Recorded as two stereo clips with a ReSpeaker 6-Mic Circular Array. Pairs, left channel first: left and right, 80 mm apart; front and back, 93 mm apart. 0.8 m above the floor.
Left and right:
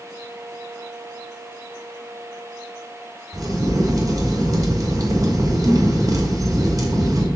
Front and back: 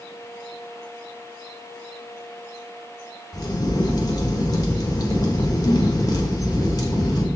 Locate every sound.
3.3 s a crack: 45° right, 1.6 m